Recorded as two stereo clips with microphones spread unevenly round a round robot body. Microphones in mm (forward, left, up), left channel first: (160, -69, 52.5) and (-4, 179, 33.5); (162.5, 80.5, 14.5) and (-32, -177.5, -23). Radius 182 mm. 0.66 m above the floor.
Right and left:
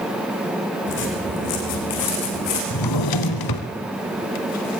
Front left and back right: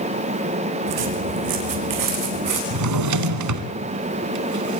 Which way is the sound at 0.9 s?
120° right.